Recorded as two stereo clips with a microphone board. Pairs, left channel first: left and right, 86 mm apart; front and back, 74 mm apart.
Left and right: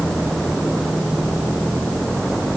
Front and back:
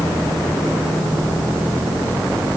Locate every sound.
Only background noise.